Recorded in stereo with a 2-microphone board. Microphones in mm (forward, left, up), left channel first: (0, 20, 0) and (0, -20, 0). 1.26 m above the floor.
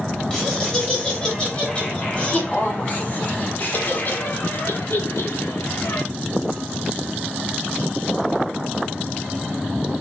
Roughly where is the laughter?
Centre.